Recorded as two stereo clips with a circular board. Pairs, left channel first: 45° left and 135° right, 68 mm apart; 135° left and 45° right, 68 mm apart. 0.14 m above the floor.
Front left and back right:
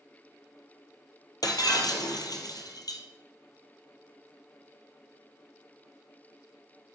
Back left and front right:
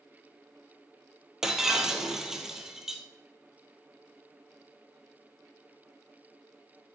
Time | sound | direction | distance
1.4 | breaking glass | 40° left | 1.8 m